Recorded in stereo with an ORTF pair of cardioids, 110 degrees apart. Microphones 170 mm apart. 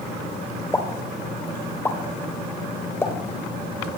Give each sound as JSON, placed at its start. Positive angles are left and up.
{"t": 0.7, "sound": "a pop", "azimuth_deg": 15, "distance_m": 2.5}